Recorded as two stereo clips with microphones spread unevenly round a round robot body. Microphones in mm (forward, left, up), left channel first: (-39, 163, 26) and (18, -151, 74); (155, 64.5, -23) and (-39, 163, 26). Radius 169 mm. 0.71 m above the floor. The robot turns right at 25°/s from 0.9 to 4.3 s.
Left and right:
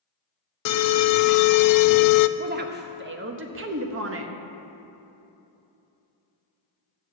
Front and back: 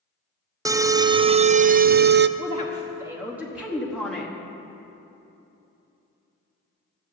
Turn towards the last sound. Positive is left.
turn(degrees=-85)